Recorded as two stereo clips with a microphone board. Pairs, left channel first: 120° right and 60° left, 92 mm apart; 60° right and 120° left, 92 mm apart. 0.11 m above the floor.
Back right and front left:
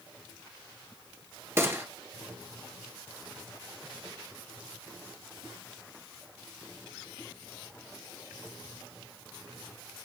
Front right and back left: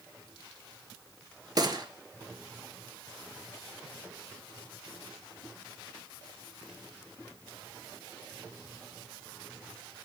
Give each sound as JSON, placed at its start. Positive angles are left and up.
{"t": 1.6, "sound": "a gunshot", "azimuth_deg": 115, "distance_m": 1.8}